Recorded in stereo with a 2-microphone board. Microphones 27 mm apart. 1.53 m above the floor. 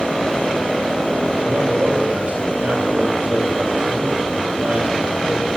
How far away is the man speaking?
About 8 m.